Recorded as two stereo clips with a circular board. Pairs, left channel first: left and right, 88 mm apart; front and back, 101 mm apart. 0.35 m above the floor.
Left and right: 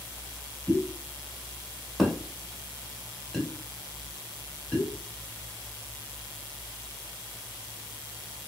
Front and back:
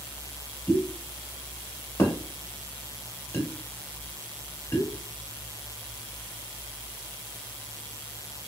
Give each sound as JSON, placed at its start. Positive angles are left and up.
{"t": 0.7, "sound": "a pop", "azimuth_deg": 5, "distance_m": 1.2}